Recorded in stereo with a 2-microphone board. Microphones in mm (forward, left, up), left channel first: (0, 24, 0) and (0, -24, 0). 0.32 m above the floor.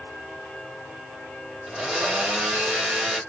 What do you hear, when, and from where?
1.7 s a blender: 20° right (ahead or behind), 3 m